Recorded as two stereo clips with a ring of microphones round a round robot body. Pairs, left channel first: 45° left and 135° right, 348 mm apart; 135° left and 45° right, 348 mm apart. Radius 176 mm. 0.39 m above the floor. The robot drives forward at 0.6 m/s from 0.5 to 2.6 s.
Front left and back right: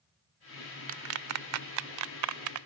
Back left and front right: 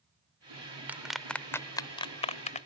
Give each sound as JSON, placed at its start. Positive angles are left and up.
{"t": 0.9, "sound": "a clap", "azimuth_deg": -125}